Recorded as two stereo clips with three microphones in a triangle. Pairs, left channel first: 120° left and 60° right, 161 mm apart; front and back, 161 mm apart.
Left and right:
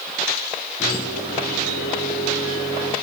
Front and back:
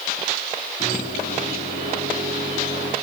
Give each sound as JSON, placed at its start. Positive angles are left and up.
{"t": 0.8, "sound": "a microwave", "azimuth_deg": 25, "distance_m": 6.0}